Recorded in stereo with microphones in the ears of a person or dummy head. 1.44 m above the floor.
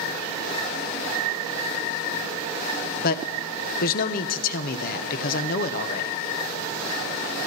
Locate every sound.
3.0 s a man speaking: 50° left (ahead or behind), 1.1 m